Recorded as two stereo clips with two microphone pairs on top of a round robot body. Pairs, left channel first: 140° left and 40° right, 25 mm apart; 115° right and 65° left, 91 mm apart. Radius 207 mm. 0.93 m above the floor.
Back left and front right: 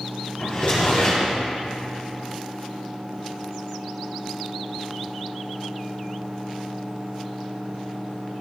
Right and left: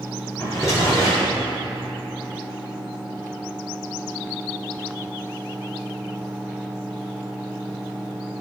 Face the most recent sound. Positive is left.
turn(degrees=-175)